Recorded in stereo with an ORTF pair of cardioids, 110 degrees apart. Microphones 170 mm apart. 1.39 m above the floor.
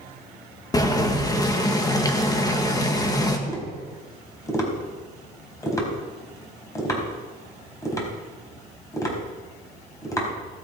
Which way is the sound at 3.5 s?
20° left.